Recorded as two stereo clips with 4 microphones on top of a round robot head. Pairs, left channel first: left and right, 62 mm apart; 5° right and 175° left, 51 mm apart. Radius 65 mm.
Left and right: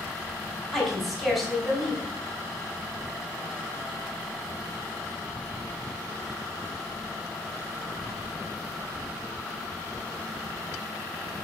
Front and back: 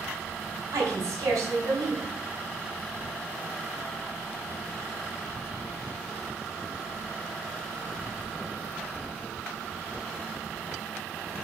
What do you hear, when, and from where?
0.7 s a woman speaking: straight behind, 4.5 m